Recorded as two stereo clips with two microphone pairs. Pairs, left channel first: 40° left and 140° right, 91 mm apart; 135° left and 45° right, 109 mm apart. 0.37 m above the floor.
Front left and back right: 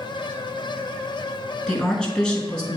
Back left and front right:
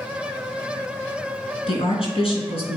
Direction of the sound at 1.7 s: 125° left.